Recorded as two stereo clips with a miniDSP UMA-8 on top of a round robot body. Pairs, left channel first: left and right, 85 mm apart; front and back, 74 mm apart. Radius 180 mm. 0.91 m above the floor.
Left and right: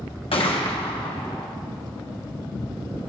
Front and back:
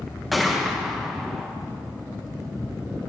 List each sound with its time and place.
0.3 s a gunshot: 90° left, 1.2 m